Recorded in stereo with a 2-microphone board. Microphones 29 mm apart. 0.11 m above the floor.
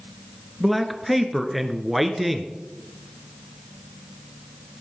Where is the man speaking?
5° right (ahead or behind), 1.3 m.